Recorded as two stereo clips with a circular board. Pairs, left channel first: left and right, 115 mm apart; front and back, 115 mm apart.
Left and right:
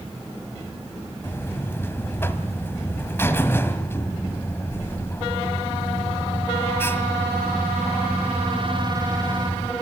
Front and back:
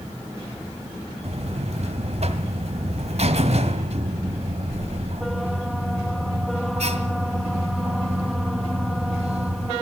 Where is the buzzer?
160° left, 1.6 m.